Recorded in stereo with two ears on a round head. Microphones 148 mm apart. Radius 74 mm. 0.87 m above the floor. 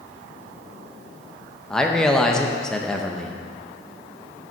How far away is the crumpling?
I don't hear crumpling.